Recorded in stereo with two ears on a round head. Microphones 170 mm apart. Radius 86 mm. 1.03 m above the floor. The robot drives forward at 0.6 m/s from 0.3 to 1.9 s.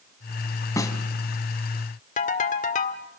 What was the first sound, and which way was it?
A snare drum, 15° left (ahead or behind).